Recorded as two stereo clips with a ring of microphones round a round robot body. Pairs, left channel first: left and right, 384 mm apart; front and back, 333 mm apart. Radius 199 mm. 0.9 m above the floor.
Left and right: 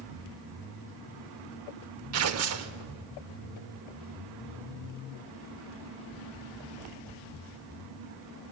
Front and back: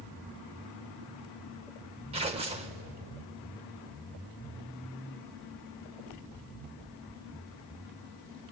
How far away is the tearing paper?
About 0.6 m.